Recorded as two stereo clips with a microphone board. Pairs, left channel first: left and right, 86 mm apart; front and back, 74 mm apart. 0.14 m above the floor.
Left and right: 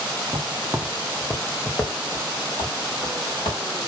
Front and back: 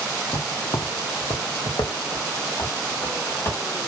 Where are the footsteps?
45° right, 0.6 m; by 3.6 s 55° left, 1.5 m.